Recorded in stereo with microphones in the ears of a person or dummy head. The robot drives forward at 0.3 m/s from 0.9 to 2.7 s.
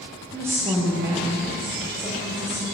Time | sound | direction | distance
0.3 | a woman speaking | 10° right (ahead or behind) | 0.7 m